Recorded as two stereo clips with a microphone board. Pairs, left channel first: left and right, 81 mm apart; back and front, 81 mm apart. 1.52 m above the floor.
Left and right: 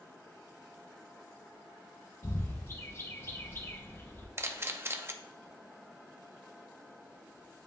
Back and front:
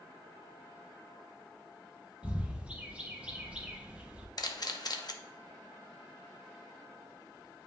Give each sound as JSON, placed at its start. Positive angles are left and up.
{"t": 2.2, "sound": "a bird", "azimuth_deg": 60, "distance_m": 0.9}
{"t": 4.4, "sound": "a camera shutter", "azimuth_deg": -150, "distance_m": 0.6}